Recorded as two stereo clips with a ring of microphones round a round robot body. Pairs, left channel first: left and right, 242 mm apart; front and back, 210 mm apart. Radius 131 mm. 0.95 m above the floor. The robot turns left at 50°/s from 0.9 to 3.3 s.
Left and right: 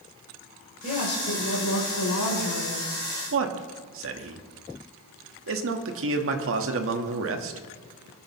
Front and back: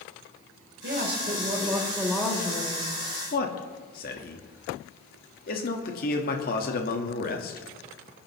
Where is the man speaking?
55° right, 1.4 m.